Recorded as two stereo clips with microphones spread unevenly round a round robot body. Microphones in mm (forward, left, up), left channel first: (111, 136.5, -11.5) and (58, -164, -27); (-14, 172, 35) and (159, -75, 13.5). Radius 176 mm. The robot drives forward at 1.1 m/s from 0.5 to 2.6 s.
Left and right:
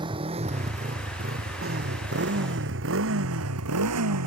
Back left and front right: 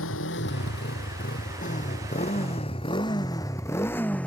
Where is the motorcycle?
Straight behind; by 4.3 s 150° right.